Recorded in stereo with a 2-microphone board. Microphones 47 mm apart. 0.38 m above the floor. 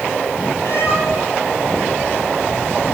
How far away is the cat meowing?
About 6 m.